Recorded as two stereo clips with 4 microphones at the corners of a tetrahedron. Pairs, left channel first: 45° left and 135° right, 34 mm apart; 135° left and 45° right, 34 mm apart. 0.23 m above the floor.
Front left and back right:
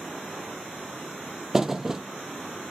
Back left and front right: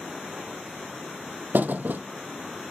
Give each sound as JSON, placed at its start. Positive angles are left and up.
{"t": 1.5, "sound": "a thud", "azimuth_deg": -60, "distance_m": 0.6}